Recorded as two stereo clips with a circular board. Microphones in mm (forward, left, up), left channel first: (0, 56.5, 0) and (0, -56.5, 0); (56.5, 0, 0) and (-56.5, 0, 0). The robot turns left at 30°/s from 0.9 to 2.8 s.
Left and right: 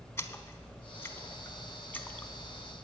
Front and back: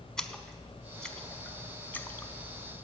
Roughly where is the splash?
Left.